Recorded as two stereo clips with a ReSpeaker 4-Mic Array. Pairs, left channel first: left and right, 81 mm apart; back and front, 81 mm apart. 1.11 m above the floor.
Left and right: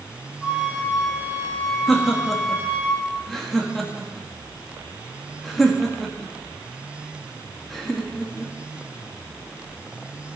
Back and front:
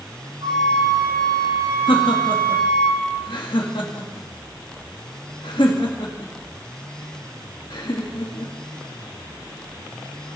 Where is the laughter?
Straight behind, 1.6 m.